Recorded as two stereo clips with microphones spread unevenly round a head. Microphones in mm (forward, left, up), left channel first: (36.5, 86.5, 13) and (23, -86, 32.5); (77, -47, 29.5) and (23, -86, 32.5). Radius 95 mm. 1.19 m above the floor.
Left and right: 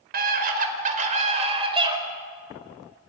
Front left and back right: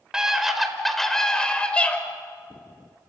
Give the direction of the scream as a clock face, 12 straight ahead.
2 o'clock.